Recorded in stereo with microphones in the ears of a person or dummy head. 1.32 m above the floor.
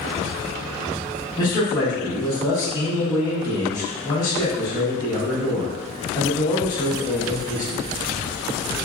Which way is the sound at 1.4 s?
20° left (ahead or behind).